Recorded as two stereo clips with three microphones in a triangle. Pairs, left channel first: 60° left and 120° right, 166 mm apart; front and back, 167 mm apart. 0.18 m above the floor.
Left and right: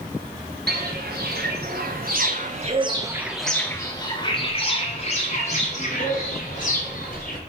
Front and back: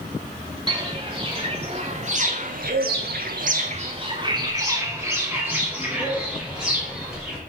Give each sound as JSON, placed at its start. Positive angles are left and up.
{"t": 0.7, "sound": "footsteps", "azimuth_deg": -120, "distance_m": 1.3}